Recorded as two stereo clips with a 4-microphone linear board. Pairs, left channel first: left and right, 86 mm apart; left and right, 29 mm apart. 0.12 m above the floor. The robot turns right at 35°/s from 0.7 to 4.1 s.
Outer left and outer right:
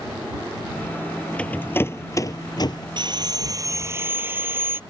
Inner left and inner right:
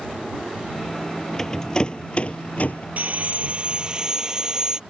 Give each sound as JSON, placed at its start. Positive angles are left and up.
{"t": 1.4, "sound": "a rattle", "side_deg": 15}
{"t": 3.0, "sound": "sawing", "azimuth_deg": -65}